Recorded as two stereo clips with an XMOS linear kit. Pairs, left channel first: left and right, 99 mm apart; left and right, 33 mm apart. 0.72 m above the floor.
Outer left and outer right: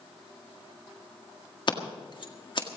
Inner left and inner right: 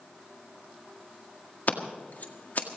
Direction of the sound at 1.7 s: 55° left (ahead or behind).